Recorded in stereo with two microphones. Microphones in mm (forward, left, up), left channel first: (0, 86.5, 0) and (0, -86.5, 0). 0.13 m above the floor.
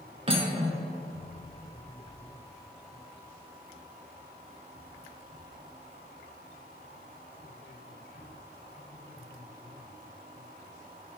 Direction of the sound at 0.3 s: 35° right (ahead or behind).